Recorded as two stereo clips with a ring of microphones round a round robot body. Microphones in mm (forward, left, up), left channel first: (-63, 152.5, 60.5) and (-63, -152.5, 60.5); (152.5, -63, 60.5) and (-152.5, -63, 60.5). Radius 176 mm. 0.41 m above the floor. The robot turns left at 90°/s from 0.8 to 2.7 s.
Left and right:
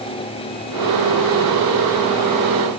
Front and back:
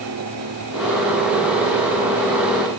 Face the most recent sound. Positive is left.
No sound to turn to.